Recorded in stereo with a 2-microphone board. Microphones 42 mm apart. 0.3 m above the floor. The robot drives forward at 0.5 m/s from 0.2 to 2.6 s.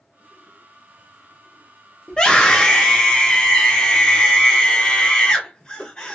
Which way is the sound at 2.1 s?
25° left (ahead or behind).